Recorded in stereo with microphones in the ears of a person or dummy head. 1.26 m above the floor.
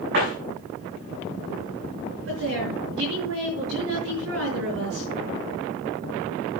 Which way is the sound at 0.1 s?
60° right (ahead or behind).